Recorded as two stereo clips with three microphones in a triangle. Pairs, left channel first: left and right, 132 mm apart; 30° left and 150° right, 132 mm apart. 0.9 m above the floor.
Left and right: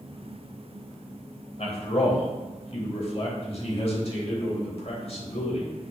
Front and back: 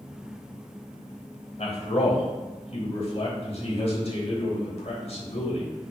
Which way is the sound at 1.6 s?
60° left.